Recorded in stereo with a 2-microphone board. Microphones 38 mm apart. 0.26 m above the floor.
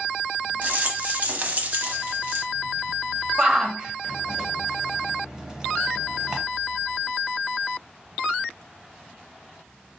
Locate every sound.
0.6 s a rattle: 35° right (ahead or behind), 1.1 m
3.4 s a shout: 15° right (ahead or behind), 1.0 m